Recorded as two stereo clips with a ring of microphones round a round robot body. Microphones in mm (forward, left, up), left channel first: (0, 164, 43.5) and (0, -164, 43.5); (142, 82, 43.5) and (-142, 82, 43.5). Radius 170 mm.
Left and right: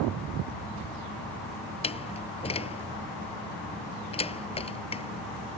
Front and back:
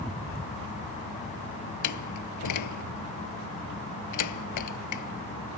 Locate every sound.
1.8 s a door slam: 15° left